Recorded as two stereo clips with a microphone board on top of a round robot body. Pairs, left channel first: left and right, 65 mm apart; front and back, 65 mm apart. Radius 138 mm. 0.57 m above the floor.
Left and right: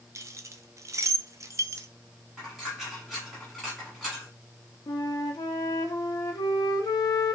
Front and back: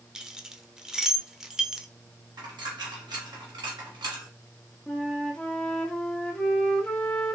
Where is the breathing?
I don't hear breathing.